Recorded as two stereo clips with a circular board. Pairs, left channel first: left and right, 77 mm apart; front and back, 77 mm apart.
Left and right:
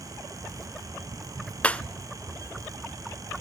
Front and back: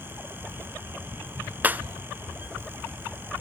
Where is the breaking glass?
145° left, 0.7 m.